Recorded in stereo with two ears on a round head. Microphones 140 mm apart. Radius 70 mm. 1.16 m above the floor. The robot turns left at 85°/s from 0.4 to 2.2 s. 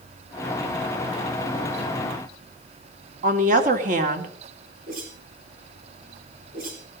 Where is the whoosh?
55° right (ahead or behind), 6 m.